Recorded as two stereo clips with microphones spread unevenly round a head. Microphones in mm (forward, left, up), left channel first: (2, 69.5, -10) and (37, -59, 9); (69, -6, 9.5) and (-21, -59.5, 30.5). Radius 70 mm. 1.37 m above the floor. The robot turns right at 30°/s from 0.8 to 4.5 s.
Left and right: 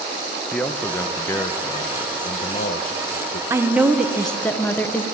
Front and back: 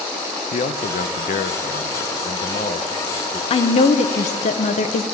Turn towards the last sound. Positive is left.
turn(degrees=25)